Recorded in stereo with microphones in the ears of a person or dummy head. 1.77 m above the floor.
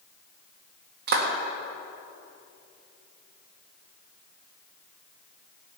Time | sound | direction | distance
1.1 | a clap | 50° right (ahead or behind) | 1.8 m